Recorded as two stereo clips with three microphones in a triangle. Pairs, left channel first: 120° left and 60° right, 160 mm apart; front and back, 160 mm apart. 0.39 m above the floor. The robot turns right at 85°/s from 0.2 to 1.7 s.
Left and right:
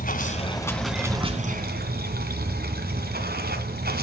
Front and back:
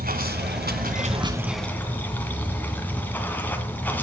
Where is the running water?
155° left, 2 m; by 4.0 s 80° right, 2 m.